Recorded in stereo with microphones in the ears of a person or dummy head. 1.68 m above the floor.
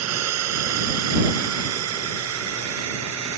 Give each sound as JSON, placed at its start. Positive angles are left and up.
{"t": 0.0, "sound": "a drone", "side_deg": -90}